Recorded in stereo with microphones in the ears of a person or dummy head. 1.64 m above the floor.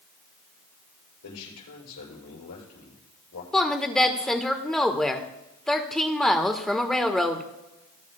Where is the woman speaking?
5° left (ahead or behind), 1.3 m.